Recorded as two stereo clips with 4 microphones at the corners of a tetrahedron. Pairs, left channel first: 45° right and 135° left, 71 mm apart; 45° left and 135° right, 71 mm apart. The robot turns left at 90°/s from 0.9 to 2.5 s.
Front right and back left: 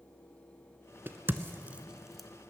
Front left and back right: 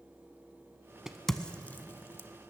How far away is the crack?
About 0.7 m.